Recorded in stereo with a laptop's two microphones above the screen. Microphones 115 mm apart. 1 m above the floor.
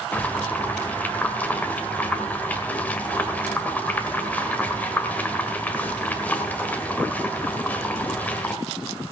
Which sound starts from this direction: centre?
Boiling, at 0.1 s.